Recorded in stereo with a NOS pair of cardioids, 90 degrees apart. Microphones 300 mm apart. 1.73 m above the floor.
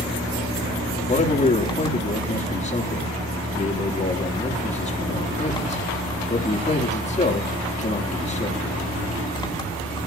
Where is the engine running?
15° left, 4.5 m.